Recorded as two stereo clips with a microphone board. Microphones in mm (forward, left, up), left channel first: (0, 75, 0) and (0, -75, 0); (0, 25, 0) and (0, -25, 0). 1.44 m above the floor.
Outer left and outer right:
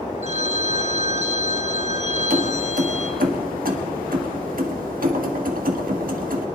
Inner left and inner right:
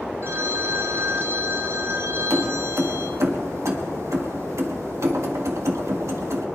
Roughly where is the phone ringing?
Right.